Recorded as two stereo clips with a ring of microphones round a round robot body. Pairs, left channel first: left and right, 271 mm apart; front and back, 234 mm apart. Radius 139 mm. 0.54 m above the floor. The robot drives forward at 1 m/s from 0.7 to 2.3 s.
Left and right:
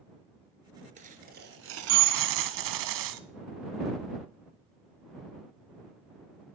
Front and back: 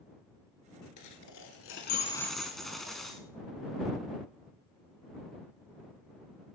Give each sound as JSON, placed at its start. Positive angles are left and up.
{"t": 1.0, "sound": "a dropped coin", "azimuth_deg": -25, "distance_m": 1.5}